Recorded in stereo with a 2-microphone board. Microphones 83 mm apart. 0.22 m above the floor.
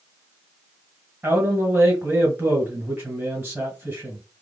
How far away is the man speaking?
About 1.4 m.